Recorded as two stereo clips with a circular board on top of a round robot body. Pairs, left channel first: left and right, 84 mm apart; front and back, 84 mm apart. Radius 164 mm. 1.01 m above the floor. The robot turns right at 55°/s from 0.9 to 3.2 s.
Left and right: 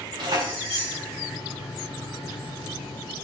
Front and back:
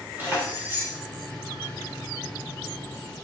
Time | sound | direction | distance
0.2 | keys jangling | 110° right | 3 m